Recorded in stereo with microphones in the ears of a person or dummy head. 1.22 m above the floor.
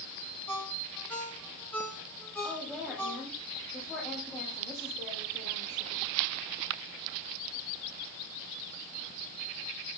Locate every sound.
0.5 s a ringtone: 10° left (ahead or behind), 2.5 m
2.4 s a woman speaking: centre (ahead or behind), 2.5 m